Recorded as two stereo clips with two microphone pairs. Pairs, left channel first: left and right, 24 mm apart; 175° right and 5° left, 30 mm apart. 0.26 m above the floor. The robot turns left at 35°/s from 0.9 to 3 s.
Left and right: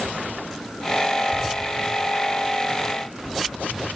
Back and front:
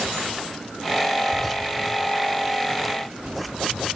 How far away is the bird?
About 2.5 m.